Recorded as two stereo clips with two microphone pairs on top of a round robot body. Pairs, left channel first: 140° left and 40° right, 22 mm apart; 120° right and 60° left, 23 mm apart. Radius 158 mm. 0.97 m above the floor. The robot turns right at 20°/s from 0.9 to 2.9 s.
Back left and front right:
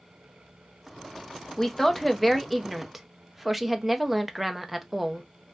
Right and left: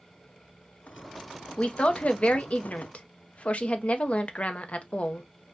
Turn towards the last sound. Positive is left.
turn(degrees=-115)